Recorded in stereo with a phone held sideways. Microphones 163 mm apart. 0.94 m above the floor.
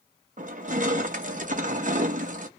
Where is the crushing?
55° right (ahead or behind), 0.6 m.